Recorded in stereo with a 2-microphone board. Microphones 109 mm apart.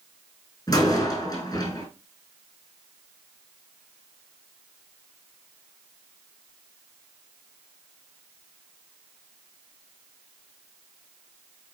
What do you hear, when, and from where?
0.7 s a door slam: 35° left (ahead or behind), 4 m